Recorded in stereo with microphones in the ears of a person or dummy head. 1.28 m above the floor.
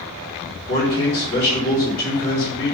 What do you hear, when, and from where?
0.7 s a man speaking: 75° left (ahead or behind), 1.8 m